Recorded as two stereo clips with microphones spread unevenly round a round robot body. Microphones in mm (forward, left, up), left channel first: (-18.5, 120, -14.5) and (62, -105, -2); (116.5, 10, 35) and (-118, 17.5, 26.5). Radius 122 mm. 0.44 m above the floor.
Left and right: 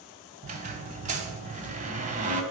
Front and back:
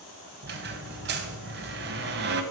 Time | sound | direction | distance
0.4 | a squeak | 135° right | 1.2 m